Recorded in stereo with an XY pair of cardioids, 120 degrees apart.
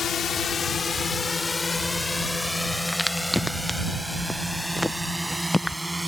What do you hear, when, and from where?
0.0 s a drone: 45° left; by 6.1 s 10° right
2.9 s a crack: 5° left